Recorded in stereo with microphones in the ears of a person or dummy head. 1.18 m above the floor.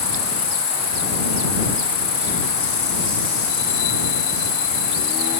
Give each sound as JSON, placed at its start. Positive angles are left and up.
{"t": 0.0, "sound": "an insect", "side_deg": 30}